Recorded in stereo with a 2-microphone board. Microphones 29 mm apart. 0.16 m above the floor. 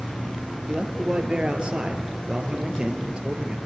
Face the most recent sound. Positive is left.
turn(degrees=-35)  # may be behind; listen again after turning